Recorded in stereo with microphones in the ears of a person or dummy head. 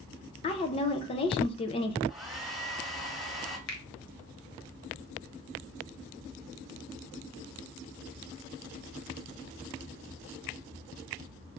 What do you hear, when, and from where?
0.4 s a woman speaking: 25° left (ahead or behind), 0.5 m
2.1 s a hair dryer: centre (ahead or behind), 1.3 m
3.7 s a finger snap: 55° left (ahead or behind), 1.1 m